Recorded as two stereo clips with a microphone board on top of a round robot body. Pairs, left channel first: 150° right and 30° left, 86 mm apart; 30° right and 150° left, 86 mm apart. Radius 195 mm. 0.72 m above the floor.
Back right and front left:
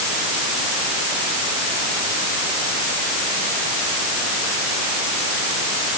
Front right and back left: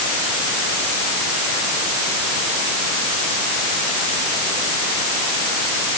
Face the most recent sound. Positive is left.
No sound to turn to.